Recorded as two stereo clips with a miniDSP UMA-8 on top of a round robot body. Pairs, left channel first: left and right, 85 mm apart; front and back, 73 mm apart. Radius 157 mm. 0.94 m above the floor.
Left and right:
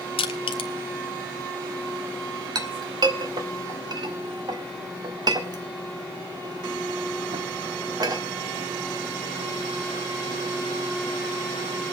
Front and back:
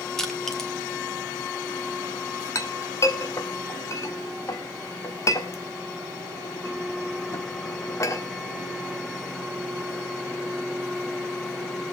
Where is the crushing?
85° left, 0.8 m.